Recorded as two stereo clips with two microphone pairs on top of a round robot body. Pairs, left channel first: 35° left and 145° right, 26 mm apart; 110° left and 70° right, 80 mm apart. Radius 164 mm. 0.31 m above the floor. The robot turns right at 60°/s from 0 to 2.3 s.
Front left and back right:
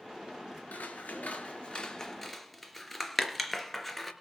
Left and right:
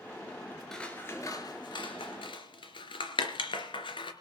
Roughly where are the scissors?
Ahead left.